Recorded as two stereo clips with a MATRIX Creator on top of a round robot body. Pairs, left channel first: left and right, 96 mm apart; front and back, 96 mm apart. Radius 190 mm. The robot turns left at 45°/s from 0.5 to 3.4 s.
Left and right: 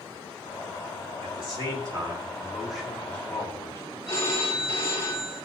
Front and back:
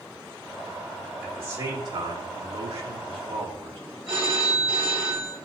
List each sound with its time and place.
1.2 s a man speaking: 110° right, 3 m; by 3.8 s 150° left, 3 m
4.1 s a phone ringing: 145° left, 4 m